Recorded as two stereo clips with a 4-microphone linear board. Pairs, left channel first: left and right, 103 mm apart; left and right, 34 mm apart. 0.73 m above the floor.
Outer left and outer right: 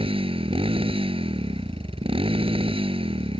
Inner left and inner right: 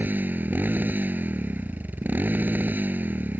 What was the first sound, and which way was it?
A motorcycle, 65° right (ahead or behind).